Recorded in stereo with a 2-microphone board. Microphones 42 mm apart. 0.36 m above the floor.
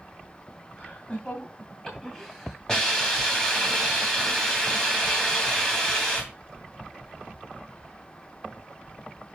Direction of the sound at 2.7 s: 15° left (ahead or behind).